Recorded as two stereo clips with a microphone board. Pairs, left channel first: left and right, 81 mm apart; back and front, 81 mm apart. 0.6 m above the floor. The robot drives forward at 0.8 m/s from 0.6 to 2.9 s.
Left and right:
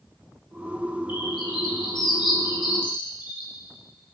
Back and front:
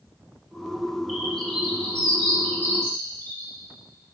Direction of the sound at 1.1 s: 90° left.